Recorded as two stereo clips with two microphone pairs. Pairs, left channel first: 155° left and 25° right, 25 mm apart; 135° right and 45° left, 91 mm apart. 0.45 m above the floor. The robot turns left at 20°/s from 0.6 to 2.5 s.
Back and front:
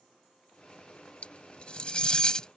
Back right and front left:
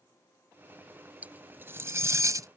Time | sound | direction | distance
1.2 | cutlery clinking | 120° left | ?